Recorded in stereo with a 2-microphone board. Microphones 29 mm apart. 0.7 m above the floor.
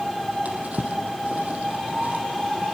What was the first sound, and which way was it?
A drawer, 60° right (ahead or behind).